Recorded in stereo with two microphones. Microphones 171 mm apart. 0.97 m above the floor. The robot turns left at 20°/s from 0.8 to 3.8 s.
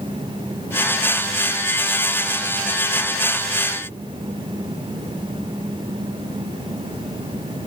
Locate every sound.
Only background noise.